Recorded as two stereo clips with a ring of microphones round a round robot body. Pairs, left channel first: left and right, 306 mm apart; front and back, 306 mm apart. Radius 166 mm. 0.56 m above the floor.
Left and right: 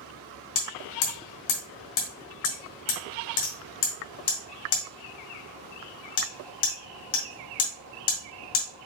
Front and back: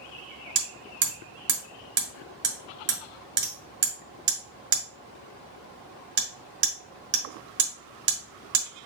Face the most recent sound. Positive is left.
turn(degrees=125)